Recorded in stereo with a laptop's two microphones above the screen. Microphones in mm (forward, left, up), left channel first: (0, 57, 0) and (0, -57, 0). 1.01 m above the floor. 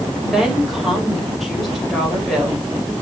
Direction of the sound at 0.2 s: Centre (ahead or behind).